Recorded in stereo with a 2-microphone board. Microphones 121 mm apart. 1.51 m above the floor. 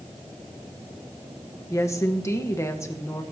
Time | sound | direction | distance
1.7 | a woman speaking | 25° left (ahead or behind) | 1.1 m